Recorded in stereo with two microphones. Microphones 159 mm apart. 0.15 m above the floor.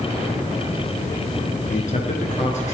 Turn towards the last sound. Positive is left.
turn(degrees=50)  # may be behind; listen again after turning